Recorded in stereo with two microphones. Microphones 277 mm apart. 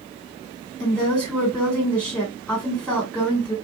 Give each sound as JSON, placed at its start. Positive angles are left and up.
{"t": 0.8, "sound": "a woman speaking", "side_deg": 5, "distance_m": 2.0}